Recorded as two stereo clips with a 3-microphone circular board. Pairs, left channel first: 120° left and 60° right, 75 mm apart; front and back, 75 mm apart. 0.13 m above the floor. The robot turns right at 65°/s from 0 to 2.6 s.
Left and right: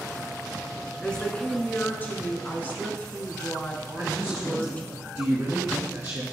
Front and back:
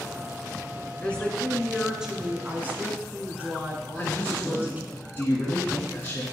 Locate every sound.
1.0 s a woman speaking: 45° left, 1.2 m; by 5.0 s 150° left, 1.2 m
4.0 s a man speaking: 35° right, 1.7 m